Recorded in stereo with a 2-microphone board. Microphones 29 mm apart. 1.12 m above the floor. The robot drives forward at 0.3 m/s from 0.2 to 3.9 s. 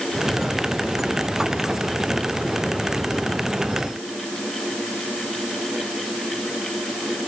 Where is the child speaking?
I don't hear a child speaking.